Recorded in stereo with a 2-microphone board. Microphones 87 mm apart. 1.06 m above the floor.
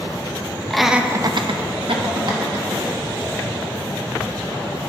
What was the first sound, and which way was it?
Laughter, 5° left (ahead or behind).